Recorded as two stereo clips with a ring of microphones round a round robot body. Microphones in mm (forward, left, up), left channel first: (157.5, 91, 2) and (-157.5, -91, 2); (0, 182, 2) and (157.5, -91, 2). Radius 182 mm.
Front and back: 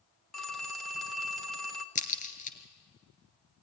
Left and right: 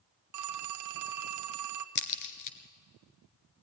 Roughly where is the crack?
Left.